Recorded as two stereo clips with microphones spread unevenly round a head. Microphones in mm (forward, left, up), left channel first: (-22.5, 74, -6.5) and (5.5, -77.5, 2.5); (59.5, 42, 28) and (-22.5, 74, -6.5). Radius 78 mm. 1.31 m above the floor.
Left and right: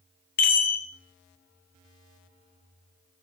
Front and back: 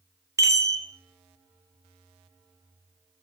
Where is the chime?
95° left, 1.1 m.